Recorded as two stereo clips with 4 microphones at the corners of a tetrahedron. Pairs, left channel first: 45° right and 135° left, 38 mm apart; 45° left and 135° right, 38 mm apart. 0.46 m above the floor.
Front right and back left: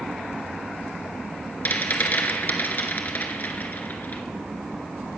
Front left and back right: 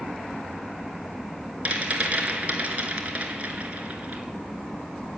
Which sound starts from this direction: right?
A rattle, at 1.6 s.